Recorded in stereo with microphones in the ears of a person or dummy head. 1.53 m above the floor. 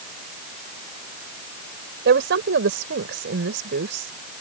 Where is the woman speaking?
65° right (ahead or behind).